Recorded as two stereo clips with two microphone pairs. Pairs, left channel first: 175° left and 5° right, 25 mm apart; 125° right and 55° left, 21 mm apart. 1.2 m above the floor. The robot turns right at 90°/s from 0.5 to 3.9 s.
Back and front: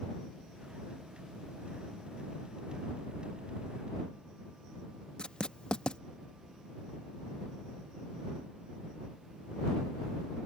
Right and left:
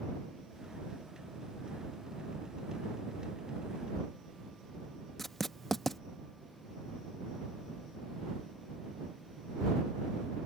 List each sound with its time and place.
5.2 s writing: 155° left